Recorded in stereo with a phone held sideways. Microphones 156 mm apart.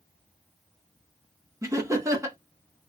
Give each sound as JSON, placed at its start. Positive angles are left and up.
{"t": 1.6, "sound": "laughter", "side_deg": -20, "distance_m": 1.4}